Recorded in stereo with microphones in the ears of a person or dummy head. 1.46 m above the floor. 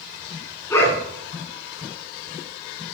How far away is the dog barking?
About 6 m.